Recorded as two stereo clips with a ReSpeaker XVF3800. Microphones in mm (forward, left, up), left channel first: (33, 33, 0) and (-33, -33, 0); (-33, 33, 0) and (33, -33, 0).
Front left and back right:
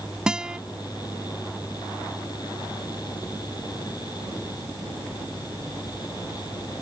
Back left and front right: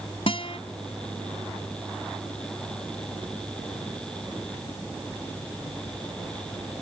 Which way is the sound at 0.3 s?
145° left.